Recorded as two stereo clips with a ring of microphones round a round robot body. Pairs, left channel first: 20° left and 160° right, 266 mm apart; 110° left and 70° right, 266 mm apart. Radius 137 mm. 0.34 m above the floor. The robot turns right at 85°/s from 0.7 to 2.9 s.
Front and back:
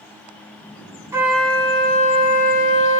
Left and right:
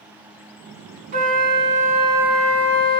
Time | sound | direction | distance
1.1 | a flute | 90° right | 1.0 m